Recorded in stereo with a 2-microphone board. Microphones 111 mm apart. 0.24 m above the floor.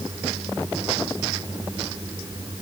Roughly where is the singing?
I don't hear singing.